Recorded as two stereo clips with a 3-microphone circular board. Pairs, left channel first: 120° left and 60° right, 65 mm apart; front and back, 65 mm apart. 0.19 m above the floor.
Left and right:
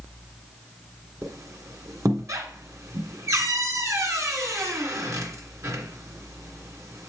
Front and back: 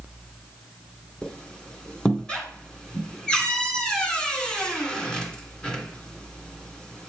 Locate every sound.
1.2 s a squeak: 70° right, 1.7 m